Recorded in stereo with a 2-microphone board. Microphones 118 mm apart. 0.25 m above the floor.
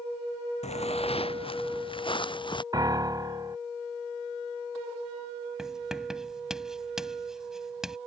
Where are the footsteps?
65° left (ahead or behind); by 2.6 s 45° left (ahead or behind).